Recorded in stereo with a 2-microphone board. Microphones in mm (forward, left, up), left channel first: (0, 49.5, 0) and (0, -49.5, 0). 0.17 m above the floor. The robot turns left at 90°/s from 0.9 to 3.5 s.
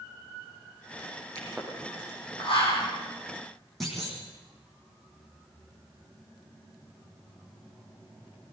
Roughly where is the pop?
Right.